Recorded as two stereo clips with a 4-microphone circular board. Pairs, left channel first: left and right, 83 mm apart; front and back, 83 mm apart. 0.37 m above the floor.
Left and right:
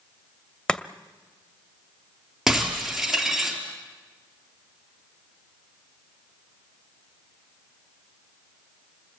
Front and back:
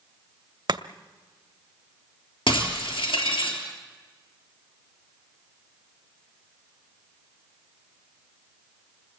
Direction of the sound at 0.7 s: 170° left.